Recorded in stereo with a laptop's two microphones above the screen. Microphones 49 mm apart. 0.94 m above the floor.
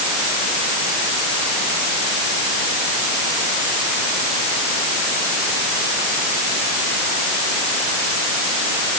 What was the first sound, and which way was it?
Only background noise.